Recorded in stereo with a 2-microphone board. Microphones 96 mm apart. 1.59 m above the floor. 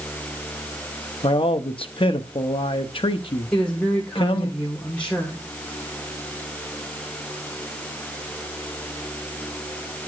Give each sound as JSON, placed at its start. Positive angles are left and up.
{"t": 1.2, "sound": "a man speaking", "side_deg": 65, "distance_m": 0.7}
{"t": 3.5, "sound": "a woman speaking", "side_deg": 10, "distance_m": 1.3}